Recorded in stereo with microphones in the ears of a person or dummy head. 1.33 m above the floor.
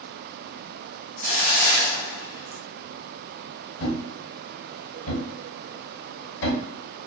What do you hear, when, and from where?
1.2 s a hiss: 35° left (ahead or behind), 0.6 m
3.8 s a thud: 65° left (ahead or behind), 1.4 m